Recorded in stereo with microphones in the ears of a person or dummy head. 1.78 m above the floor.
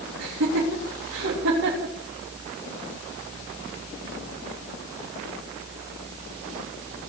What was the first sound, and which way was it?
Laughter, 60° right (ahead or behind).